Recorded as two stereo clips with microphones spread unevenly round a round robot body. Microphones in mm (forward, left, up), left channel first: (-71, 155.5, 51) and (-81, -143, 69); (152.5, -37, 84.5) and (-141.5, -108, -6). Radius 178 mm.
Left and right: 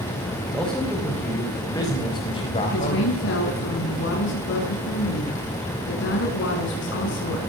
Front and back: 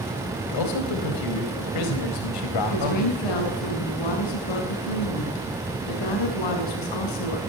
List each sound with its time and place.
0.5 s a man speaking: straight ahead, 4.5 m; by 3.6 s 25° left, 4.5 m
2.7 s a woman speaking: 30° left, 6 m